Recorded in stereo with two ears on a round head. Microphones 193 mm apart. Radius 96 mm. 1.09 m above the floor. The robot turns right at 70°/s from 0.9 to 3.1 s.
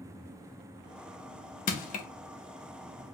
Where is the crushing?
40° left (ahead or behind), 0.8 m; by 2.1 s 35° left (ahead or behind), 0.8 m.